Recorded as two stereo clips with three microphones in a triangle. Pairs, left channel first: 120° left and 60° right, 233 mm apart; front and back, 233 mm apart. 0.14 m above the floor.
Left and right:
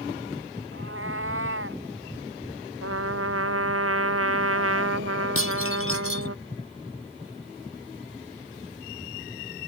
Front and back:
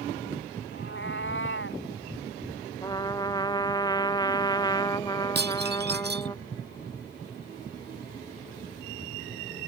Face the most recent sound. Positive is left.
turn(degrees=135)